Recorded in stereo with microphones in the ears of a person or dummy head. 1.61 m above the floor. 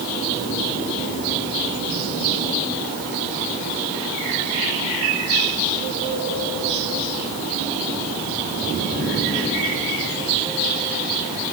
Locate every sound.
Only background noise.